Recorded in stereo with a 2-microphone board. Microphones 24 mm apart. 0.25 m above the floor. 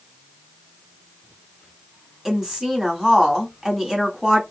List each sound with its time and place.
2.2 s a woman speaking: 15° right (ahead or behind), 2 m